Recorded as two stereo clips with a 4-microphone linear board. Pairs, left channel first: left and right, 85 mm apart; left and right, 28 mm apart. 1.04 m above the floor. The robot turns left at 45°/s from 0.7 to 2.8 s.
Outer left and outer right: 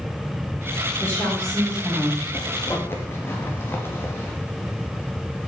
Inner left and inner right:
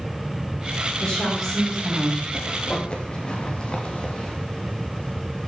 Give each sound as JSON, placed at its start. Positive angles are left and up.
{"t": 1.0, "sound": "a woman speaking", "azimuth_deg": 30, "distance_m": 4.5}
{"t": 2.3, "sound": "a zipper", "side_deg": 45, "distance_m": 2.0}